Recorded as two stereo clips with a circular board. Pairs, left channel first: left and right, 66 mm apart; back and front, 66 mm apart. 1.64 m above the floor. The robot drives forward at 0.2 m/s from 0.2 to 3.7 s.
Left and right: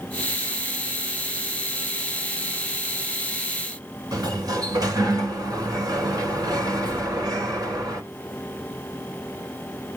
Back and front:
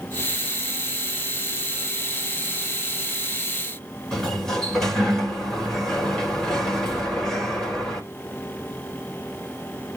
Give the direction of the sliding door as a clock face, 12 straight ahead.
3 o'clock.